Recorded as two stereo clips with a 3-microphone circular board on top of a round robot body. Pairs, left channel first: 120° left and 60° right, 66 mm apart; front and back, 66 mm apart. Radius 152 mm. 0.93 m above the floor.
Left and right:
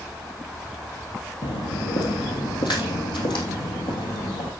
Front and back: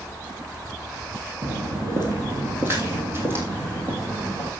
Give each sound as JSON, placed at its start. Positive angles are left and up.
{"t": 1.4, "sound": "footsteps", "azimuth_deg": 120, "distance_m": 1.7}